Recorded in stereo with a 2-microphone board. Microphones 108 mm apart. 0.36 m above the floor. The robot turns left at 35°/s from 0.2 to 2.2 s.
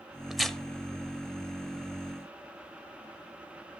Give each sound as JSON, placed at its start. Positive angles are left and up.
{"t": 0.3, "sound": "tearing paper", "side_deg": -5, "distance_m": 0.9}